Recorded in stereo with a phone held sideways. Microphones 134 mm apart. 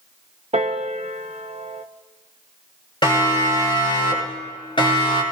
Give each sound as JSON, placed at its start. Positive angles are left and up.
{"t": 0.5, "sound": "a piano", "side_deg": -55, "distance_m": 1.0}
{"t": 3.0, "sound": "a siren", "side_deg": 35, "distance_m": 6.5}